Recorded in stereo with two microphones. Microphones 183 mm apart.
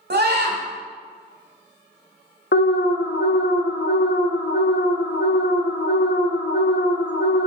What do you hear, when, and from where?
0.1 s a scream: 65° right (ahead or behind), 1.7 m
2.5 s an alarm: 85° left, 0.7 m